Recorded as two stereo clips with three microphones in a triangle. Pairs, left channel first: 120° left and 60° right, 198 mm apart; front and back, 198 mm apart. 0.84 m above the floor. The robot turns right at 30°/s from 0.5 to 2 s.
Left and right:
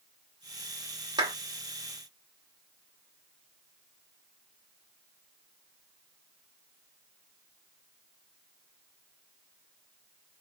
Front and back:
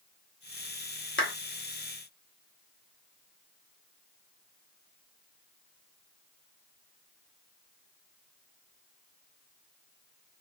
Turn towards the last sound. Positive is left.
turn(degrees=30)